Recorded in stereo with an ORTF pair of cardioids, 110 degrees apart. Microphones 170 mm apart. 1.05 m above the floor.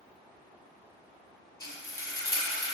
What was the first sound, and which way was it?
Frying, 20° left.